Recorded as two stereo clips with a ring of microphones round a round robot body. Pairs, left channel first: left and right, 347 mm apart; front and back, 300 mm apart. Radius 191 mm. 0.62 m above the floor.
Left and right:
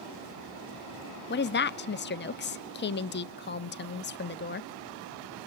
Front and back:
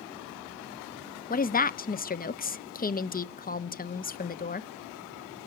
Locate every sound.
1.3 s a woman speaking: 50° left, 0.7 m